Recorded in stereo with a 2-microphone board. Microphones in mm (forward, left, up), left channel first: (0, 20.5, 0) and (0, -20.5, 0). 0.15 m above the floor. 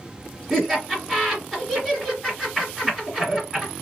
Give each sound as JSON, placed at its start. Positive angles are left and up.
{"t": 0.5, "sound": "laughter", "side_deg": -10, "distance_m": 1.4}